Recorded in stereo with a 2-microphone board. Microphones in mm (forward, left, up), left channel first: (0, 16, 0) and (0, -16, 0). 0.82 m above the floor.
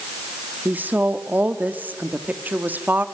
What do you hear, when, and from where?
0.7 s a woman speaking: 60° right (ahead or behind), 1.5 m